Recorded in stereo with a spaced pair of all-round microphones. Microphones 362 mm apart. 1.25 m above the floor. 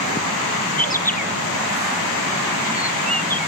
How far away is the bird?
About 0.7 m.